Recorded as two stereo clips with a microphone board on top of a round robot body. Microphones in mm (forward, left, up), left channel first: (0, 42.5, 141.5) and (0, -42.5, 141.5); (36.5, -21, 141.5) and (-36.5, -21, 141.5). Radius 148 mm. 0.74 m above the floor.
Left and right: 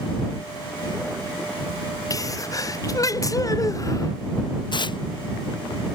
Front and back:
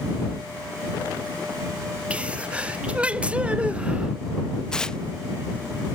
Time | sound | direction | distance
2.1 | a sneeze | 115° left | ?
4.7 | tearing paper | 80° left | ?